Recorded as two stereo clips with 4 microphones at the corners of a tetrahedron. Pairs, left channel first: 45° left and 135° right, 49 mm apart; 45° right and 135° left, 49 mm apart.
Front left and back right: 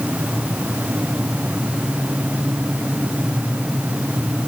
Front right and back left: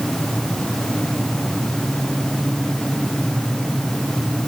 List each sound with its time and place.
Only background noise.